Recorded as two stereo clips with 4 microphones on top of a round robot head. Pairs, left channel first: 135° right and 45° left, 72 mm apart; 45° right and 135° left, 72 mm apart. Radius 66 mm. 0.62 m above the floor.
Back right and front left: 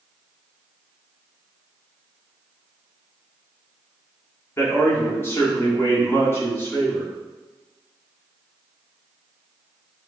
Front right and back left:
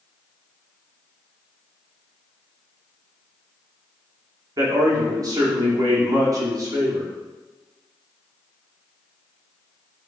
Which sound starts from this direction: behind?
A man speaking, at 4.6 s.